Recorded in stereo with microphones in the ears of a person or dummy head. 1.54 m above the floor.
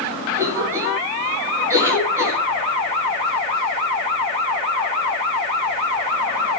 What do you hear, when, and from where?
0.3 s a cough: 15° right (ahead or behind), 7.5 m